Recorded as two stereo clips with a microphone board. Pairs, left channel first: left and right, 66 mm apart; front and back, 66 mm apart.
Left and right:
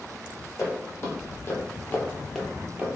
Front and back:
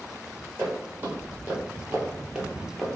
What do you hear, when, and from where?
0.6 s footsteps: 125° left, 1.6 m; by 3.0 s 80° right, 0.7 m